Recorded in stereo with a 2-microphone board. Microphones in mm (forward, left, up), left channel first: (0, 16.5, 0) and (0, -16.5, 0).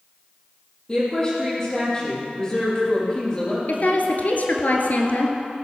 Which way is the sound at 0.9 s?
25° left (ahead or behind).